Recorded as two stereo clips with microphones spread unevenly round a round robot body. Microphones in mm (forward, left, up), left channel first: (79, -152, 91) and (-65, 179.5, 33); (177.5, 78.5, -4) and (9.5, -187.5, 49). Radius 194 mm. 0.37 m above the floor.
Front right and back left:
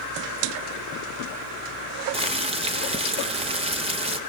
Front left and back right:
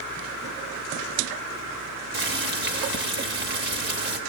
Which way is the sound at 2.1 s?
175° left.